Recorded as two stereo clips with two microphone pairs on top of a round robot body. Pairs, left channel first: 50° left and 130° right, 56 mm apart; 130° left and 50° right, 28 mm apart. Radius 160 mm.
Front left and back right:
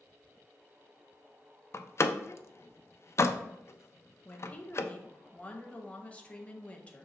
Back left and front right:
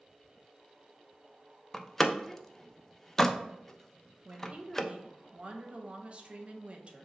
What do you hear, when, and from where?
1.7 s a door slam: 65° left, 0.5 m
4.2 s a woman speaking: 5° right, 0.9 m